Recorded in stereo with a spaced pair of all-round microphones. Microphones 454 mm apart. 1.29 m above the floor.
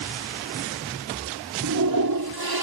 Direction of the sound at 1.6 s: 50° right (ahead or behind).